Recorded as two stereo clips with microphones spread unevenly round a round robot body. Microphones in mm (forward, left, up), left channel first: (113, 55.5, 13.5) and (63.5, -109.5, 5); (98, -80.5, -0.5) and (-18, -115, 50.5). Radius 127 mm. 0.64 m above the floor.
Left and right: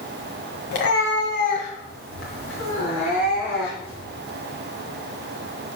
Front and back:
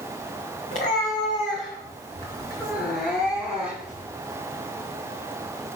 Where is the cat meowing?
65° left, 2.0 m; by 4.0 s 90° left, 4.5 m.